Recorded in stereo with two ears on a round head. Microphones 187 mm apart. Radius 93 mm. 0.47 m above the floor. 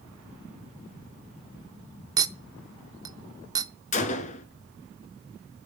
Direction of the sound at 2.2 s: 20° right (ahead or behind).